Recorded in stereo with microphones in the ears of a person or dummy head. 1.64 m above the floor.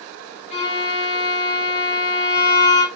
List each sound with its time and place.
0.5 s a violin: 40° left (ahead or behind), 1.4 m